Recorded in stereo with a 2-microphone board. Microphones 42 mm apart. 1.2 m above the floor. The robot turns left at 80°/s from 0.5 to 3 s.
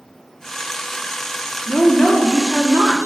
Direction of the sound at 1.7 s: 25° left.